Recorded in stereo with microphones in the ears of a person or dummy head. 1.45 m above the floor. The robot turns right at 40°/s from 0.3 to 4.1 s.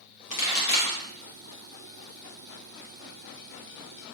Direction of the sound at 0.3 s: 40° left (ahead or behind).